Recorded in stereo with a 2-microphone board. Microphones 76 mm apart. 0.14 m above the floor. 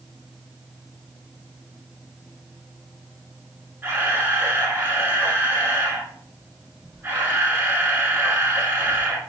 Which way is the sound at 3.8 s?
25° right (ahead or behind).